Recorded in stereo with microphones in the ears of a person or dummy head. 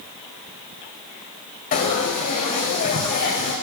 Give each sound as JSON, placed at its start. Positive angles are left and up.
{"t": 1.7, "sound": "frying", "side_deg": 40, "distance_m": 1.7}